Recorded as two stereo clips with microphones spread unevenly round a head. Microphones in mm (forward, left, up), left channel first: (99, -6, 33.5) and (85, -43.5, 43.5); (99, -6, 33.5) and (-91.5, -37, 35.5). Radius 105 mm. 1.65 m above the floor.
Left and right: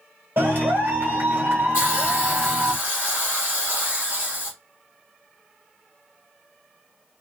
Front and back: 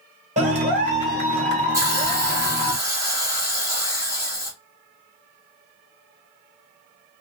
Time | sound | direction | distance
0.4 | a clap | 125° right | 1.1 m
1.7 | a hiss | 120° left | 1.3 m